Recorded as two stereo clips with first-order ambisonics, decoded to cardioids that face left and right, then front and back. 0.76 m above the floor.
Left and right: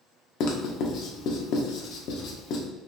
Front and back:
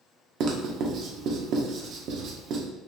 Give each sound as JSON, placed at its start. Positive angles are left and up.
{"t": 0.4, "sound": "writing", "azimuth_deg": 135, "distance_m": 0.9}